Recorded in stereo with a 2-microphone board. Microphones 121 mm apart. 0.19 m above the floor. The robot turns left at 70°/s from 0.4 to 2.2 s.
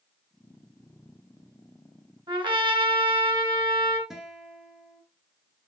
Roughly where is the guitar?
Centre.